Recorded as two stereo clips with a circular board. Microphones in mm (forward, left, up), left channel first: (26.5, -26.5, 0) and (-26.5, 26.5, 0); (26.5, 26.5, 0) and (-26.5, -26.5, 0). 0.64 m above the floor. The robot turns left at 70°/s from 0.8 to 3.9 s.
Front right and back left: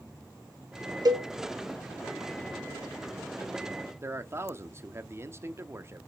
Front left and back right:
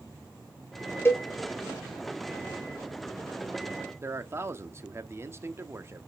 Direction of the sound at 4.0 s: Straight behind.